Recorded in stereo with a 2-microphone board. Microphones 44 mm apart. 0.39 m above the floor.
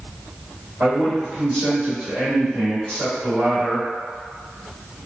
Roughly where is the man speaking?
Right.